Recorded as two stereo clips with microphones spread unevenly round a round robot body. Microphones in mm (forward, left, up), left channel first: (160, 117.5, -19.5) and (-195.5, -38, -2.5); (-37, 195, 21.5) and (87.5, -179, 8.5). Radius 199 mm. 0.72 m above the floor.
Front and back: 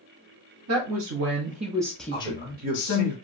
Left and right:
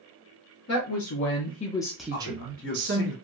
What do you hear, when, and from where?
0.7 s a woman speaking: 155° left, 0.8 m; by 3.1 s 20° right, 0.8 m
2.1 s a man speaking: 145° left, 1.2 m